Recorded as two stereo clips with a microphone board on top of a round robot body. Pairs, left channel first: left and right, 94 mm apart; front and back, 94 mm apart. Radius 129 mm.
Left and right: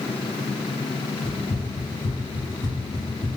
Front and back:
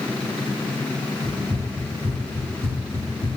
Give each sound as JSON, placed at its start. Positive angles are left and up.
{"t": 1.2, "sound": "running footsteps", "azimuth_deg": 170, "distance_m": 1.3}